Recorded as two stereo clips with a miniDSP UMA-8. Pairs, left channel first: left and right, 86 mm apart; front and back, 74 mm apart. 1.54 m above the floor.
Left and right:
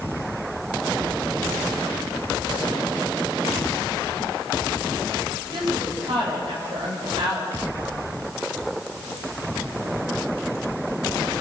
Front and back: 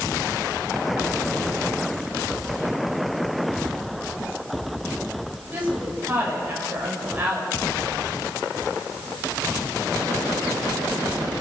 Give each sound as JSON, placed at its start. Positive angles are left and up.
{"t": 5.5, "sound": "a woman speaking", "azimuth_deg": -115, "distance_m": 8.5}